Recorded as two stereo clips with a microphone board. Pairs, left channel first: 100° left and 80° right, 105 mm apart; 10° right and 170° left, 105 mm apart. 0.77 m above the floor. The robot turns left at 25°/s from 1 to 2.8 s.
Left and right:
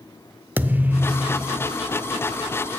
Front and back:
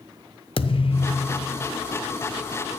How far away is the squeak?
No squeak in this recording.